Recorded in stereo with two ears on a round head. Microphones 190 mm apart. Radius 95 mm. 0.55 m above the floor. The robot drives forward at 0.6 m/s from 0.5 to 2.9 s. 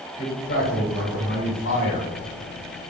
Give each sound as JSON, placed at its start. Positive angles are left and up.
{"t": 0.2, "sound": "a man speaking", "side_deg": 50, "distance_m": 1.8}